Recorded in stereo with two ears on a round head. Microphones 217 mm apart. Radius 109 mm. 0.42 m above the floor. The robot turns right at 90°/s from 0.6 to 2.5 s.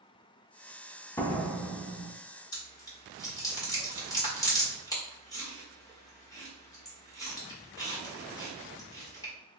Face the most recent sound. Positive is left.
turn(degrees=15)  # may be behind; listen again after turning